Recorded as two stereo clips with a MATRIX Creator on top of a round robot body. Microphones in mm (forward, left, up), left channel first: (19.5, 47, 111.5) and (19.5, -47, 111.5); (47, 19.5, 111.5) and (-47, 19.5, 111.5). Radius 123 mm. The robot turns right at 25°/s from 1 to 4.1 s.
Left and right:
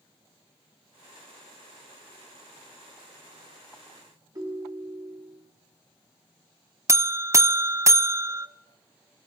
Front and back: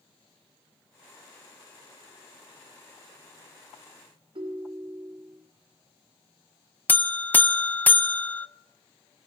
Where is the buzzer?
55° right, 0.5 m.